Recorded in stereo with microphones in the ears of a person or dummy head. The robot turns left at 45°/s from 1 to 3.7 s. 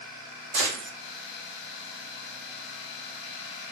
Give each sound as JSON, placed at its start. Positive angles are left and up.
{"t": 0.5, "sound": "a gunshot", "side_deg": -75, "distance_m": 1.3}